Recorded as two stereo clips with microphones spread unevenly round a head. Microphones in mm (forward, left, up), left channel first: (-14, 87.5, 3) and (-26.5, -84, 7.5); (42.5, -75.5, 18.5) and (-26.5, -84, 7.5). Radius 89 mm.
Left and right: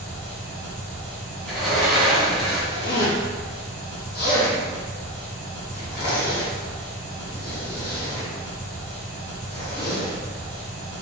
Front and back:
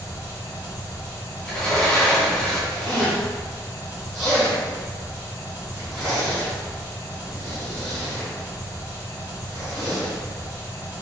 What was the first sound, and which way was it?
An engine running, 5° left.